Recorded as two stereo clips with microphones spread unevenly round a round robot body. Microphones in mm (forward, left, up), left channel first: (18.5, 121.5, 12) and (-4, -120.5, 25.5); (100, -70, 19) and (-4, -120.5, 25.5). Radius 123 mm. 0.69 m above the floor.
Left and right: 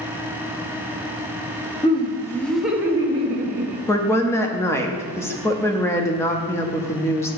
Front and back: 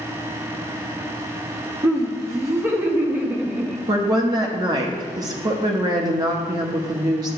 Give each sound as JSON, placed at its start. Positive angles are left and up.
{"t": 1.8, "sound": "laughter", "azimuth_deg": 145, "distance_m": 1.1}
{"t": 3.9, "sound": "a woman speaking", "azimuth_deg": 155, "distance_m": 0.7}